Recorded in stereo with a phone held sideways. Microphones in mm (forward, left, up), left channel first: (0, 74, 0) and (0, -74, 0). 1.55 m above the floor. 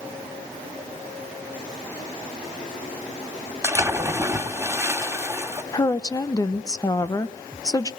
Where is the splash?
15° right (ahead or behind), 1.9 m.